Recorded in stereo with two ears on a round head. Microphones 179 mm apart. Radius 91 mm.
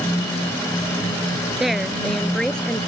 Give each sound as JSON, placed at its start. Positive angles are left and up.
{"t": 1.6, "sound": "a woman speaking", "side_deg": 0}